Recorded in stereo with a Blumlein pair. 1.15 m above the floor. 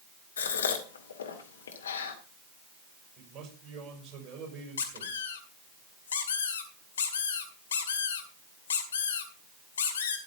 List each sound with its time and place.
0.4 s a gasp: 65° left, 1.9 m
3.2 s a man speaking: 20° right, 6.5 m
4.8 s a squeak: 65° left, 2 m